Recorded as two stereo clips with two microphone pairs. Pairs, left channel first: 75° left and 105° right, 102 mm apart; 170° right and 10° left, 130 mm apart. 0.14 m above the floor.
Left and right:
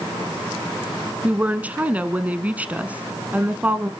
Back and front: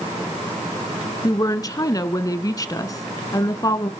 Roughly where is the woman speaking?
Behind.